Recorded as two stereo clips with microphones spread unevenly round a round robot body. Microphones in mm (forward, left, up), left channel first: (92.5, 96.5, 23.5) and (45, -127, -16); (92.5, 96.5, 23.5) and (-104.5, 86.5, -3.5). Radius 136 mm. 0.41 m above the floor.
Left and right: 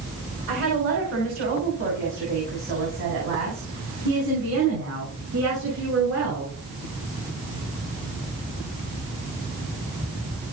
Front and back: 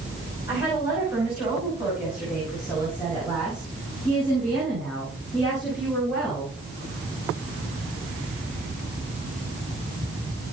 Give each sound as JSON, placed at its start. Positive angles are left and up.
{"t": 0.5, "sound": "a woman speaking", "azimuth_deg": -95, "distance_m": 5.5}